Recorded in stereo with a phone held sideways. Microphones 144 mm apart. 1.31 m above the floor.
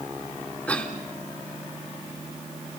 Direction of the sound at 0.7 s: 10° left (ahead or behind).